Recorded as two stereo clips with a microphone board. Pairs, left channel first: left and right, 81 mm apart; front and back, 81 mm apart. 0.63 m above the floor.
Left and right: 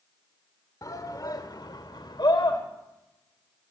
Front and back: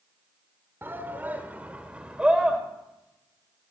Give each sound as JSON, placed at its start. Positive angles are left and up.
{"t": 0.8, "sound": "a shout", "azimuth_deg": 120, "distance_m": 2.5}